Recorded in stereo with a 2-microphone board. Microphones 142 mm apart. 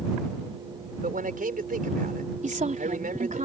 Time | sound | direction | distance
1.0 | a man speaking | 85° right | ?
2.4 | a woman speaking | 60° right (ahead or behind) | ?